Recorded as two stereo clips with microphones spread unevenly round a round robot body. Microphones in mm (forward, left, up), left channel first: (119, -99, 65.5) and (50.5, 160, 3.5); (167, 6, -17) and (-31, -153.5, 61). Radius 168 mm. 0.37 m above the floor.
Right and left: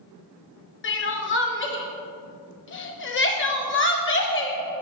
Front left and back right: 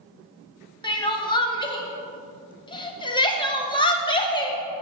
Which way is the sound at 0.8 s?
25° right.